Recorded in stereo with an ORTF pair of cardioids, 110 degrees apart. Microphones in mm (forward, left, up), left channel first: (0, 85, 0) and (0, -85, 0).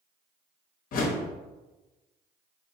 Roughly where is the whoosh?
Ahead left.